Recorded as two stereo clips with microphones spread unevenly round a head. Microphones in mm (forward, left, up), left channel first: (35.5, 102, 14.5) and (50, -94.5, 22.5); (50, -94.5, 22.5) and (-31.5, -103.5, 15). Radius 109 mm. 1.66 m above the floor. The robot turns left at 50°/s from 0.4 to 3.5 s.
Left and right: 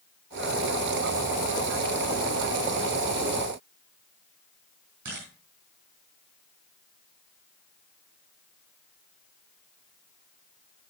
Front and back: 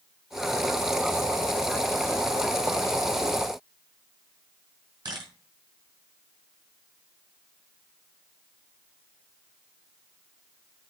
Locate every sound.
5.0 s a camera shutter: 135° right, 4 m